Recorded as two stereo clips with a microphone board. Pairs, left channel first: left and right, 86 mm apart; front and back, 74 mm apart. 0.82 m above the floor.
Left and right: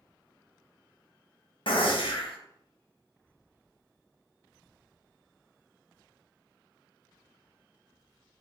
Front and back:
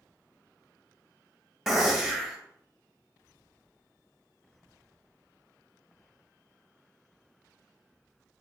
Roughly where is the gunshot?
Left.